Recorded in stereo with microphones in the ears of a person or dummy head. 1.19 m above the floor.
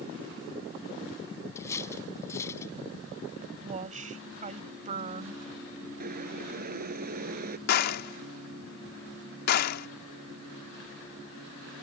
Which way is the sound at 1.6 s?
15° left (ahead or behind).